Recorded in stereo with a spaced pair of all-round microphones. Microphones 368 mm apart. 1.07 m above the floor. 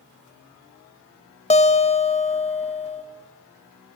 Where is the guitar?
15° left (ahead or behind), 1.0 m.